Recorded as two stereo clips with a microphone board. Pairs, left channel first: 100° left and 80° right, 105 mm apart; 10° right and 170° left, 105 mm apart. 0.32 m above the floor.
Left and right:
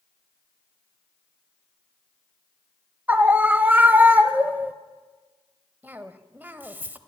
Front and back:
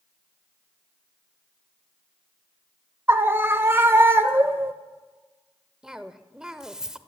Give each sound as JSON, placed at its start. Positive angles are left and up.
{"t": 3.1, "sound": "a scream", "azimuth_deg": -140, "distance_m": 1.0}
{"t": 5.8, "sound": "a cough", "azimuth_deg": -115, "distance_m": 1.1}